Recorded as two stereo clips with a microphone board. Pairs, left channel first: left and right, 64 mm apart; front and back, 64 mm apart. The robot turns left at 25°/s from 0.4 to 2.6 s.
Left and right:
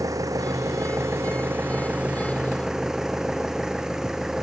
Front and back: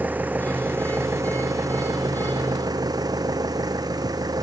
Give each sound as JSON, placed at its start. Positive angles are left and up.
{"t": 0.0, "sound": "an engine running", "azimuth_deg": -115}